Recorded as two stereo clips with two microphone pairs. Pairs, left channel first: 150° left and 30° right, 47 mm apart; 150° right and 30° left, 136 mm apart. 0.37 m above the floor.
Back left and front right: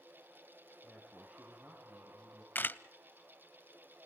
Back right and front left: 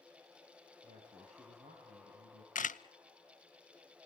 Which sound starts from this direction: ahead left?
A man speaking, at 0.8 s.